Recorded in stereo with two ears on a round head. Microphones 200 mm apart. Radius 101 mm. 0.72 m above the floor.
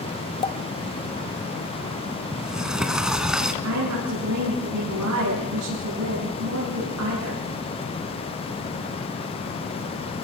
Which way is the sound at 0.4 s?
25° left (ahead or behind).